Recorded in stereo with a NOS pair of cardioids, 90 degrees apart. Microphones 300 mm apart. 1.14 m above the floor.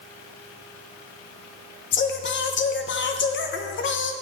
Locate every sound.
1.9 s singing: 40° left, 0.7 m